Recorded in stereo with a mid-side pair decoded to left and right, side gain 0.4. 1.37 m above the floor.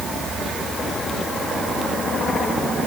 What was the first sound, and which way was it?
Only background noise.